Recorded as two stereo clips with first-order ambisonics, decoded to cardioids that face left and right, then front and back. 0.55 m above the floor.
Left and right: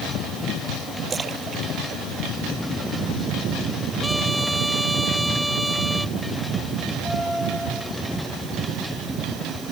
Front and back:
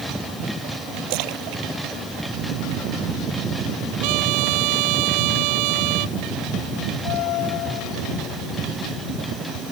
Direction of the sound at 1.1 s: 160° right.